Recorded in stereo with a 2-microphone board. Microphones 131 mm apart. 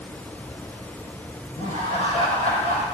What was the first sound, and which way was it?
Laughter, 65° left (ahead or behind).